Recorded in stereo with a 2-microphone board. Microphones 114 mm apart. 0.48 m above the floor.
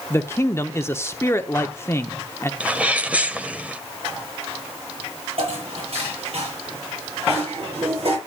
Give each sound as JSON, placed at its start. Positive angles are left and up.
{"t": 0.1, "sound": "a man speaking", "side_deg": 25, "distance_m": 0.8}
{"t": 2.6, "sound": "a sneeze", "side_deg": -15, "distance_m": 1.8}
{"t": 5.4, "sound": "dishes clattering", "side_deg": -65, "distance_m": 7.0}